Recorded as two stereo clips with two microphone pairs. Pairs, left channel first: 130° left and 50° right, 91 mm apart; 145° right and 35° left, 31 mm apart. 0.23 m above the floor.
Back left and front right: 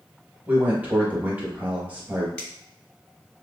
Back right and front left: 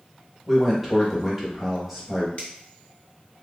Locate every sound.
0.5 s a man speaking: 30° right, 0.9 m
2.4 s a finger snap: 160° right, 1.7 m